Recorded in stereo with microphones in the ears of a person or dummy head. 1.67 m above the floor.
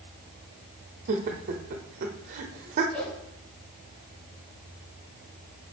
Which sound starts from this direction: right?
Laughter, at 1.1 s.